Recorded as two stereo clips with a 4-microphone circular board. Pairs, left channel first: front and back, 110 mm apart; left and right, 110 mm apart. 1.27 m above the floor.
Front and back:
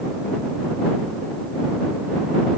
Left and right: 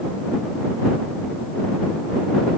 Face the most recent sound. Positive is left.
No sound to turn to.